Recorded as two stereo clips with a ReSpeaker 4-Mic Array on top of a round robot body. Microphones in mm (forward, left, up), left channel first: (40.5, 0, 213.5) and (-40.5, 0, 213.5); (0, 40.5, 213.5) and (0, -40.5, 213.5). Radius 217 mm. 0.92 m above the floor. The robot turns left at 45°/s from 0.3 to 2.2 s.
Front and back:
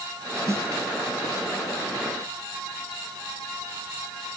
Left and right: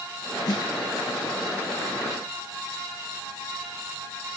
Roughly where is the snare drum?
Behind left.